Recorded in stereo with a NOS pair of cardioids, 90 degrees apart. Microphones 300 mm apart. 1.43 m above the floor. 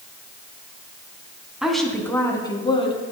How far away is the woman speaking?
About 2.5 m.